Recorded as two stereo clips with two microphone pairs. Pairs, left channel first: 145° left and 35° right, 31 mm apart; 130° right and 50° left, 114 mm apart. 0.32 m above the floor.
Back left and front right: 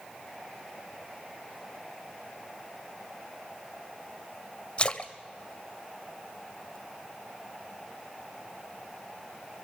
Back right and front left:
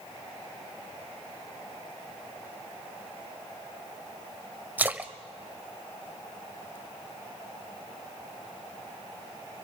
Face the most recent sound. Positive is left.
turn(degrees=115)